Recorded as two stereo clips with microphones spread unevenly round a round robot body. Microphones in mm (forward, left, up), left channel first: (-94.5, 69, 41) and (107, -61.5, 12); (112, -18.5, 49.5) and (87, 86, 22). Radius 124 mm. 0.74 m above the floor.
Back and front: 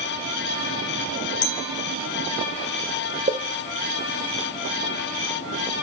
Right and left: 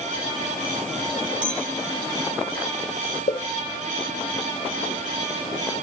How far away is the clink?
About 2.5 m.